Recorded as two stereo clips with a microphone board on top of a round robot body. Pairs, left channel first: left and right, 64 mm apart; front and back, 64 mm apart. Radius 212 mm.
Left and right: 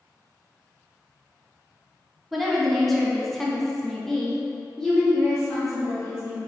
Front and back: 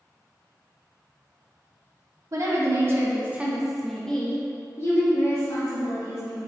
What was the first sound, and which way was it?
A woman speaking, straight behind.